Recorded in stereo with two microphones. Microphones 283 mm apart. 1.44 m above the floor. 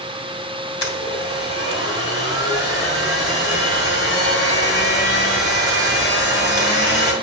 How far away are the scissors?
No scissors in this recording.